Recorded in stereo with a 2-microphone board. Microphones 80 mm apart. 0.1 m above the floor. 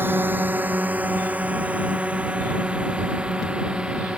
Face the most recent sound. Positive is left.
turn(degrees=-10)  # may be behind; listen again after turning